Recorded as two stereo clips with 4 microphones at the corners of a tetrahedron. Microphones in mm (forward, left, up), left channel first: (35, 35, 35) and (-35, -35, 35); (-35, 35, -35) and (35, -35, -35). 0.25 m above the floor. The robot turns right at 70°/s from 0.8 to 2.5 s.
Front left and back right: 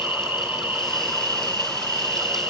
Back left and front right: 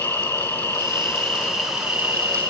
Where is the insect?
170° left, 2.5 m; by 2.5 s 70° right, 2.5 m.